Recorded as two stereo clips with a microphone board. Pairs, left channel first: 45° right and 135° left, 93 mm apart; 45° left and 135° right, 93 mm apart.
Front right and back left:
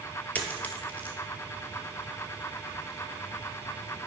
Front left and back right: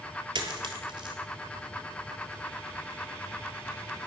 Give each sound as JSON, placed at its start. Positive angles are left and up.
{"t": 0.3, "sound": "a dropped coin", "azimuth_deg": -115, "distance_m": 0.9}